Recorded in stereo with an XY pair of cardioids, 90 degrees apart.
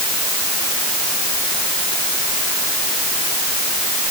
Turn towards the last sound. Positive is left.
No sound to turn to.